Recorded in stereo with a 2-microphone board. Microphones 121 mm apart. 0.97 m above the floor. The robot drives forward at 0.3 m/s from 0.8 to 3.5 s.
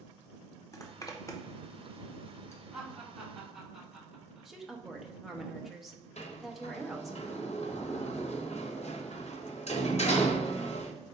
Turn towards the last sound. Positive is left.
turn(degrees=65)  # may be behind; listen again after turning